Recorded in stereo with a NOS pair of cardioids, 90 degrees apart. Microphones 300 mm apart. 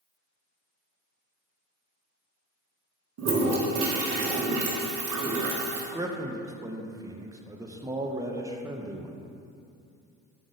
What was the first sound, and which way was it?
A toilet flushing, 55° right.